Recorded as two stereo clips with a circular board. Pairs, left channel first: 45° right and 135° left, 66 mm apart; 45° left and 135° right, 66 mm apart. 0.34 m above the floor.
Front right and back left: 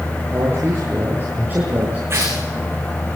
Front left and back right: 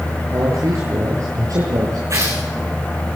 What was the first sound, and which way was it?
A man speaking, 170° right.